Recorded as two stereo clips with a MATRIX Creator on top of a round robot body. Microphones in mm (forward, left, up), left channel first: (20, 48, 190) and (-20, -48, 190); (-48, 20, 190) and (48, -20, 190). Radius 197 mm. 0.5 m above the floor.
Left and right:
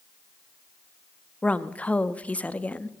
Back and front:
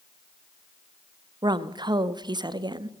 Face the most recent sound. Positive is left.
turn(degrees=-5)